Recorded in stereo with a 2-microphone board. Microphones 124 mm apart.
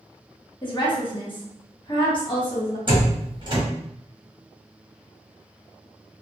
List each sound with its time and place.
0.6 s a woman speaking: 40° left (ahead or behind), 1.1 m
2.9 s a door slam: 40° right (ahead or behind), 1.0 m